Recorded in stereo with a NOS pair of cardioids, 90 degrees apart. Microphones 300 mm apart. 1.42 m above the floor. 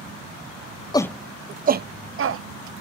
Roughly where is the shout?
Ahead.